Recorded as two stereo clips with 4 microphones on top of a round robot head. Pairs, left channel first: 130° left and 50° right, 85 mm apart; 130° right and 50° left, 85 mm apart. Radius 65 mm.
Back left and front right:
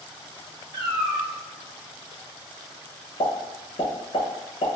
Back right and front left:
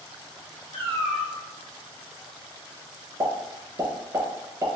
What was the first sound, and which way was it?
A cat meowing, 115° right.